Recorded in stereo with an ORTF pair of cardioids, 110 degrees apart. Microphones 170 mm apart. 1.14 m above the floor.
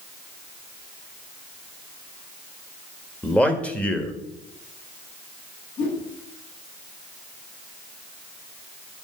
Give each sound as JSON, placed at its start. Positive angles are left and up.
{"t": 3.2, "sound": "a man speaking", "azimuth_deg": 5, "distance_m": 1.8}
{"t": 5.8, "sound": "a whoosh", "azimuth_deg": 50, "distance_m": 6.5}